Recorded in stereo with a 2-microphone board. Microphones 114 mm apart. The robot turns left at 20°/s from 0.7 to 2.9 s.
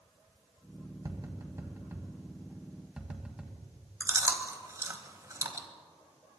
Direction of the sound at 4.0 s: 30° right (ahead or behind).